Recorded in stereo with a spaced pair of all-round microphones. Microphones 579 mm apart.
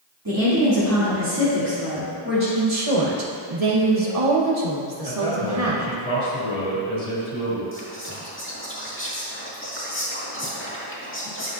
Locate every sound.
0.2 s a woman speaking: 35° right (ahead or behind), 2.5 m; by 2.5 s 20° right (ahead or behind), 3.5 m
2.6 s a woman speaking: 85° right, 1.3 m
5.0 s a man speaking: 85° left, 3 m
7.7 s whispering: 20° left (ahead or behind), 1.9 m